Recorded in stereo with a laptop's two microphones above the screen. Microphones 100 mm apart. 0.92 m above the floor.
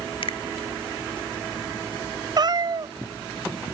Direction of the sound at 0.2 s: 60° left (ahead or behind).